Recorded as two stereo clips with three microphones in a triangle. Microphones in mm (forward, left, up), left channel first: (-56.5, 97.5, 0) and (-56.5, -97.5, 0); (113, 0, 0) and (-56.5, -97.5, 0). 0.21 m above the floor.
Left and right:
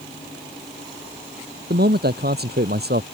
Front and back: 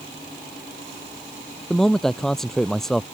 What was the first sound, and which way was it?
A man speaking, 60° right.